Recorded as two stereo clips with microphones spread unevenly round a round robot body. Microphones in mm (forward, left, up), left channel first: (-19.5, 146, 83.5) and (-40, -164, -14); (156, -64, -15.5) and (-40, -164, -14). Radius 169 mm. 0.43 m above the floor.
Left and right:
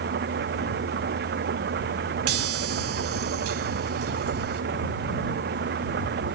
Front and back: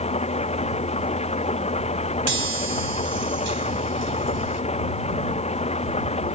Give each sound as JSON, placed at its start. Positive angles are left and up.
{"t": 0.0, "sound": "an engine running", "azimuth_deg": -35}
{"t": 2.3, "sound": "a chime", "azimuth_deg": -125}